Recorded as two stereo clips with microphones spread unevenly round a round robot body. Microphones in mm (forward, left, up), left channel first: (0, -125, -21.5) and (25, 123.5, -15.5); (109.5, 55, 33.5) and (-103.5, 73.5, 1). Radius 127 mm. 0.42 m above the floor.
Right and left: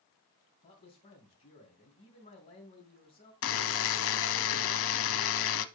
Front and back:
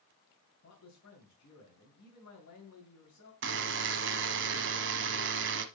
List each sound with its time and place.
0.6 s a man speaking: 35° right, 2.5 m
3.4 s a buzzer: 135° right, 0.7 m